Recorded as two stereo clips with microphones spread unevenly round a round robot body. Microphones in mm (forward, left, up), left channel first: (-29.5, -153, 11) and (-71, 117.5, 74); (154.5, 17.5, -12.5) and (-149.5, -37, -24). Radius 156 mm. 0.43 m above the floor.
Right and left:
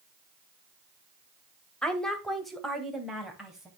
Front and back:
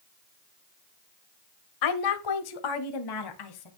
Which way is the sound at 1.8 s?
Straight ahead.